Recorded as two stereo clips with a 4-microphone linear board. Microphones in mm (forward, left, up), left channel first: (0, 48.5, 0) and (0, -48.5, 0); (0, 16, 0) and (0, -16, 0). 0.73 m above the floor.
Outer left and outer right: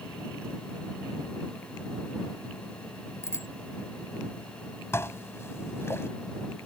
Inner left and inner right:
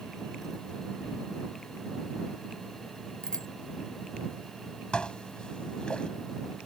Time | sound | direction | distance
3.2 | a bicycle bell | 30° left (ahead or behind) | ?
4.9 | dishes clattering | 25° left (ahead or behind) | ?